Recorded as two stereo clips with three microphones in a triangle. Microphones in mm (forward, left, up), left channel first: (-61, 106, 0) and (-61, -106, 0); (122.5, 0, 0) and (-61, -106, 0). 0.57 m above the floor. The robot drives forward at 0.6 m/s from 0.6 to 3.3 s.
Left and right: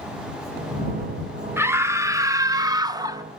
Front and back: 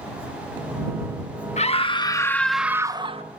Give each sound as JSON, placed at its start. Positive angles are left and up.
{"t": 1.6, "sound": "a scream", "azimuth_deg": -15, "distance_m": 1.0}